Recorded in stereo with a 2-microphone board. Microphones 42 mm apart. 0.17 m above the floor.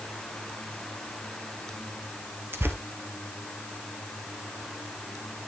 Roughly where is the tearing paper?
Right.